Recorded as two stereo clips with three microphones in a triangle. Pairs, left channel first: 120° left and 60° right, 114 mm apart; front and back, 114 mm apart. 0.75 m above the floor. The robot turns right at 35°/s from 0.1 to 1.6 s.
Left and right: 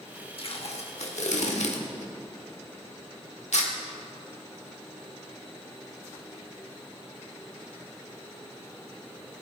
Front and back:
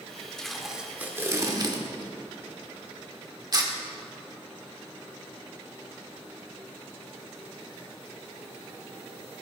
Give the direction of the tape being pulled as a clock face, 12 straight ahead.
9 o'clock.